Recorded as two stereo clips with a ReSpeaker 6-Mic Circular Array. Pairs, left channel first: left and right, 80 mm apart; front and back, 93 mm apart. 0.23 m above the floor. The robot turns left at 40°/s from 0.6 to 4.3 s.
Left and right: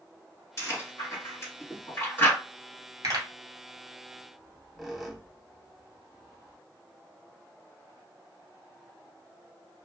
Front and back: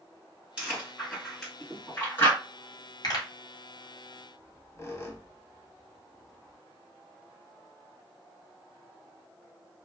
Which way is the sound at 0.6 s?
110° left.